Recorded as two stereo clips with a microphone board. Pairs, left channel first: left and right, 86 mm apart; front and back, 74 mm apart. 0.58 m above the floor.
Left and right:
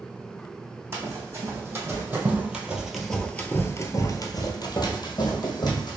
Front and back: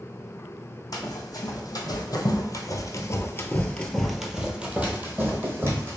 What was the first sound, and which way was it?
Running footsteps, 30° right.